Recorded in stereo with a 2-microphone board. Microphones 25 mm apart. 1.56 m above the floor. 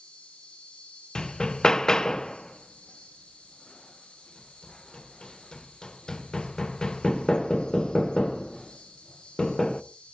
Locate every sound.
0.0 s an insect: 50° left (ahead or behind), 10 m
1.1 s hammering: 30° left (ahead or behind), 0.6 m